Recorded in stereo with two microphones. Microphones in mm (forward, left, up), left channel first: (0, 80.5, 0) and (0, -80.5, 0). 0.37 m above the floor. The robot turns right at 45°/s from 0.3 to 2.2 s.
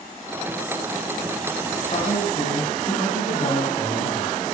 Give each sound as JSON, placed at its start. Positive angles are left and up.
{"t": 1.9, "sound": "a man speaking", "side_deg": 45, "distance_m": 3.0}